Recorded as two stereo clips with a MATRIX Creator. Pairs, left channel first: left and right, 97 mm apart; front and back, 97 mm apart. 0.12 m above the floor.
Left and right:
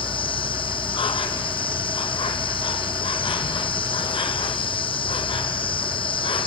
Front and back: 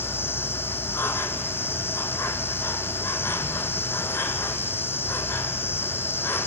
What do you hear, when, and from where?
0.0 s an insect: 65° left, 1.2 m